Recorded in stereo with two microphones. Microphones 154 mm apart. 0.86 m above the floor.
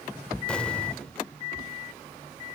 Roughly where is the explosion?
Centre.